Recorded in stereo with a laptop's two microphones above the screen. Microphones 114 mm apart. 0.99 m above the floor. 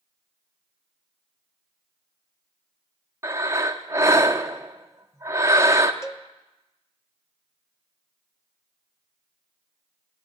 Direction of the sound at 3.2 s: 25° right (ahead or behind).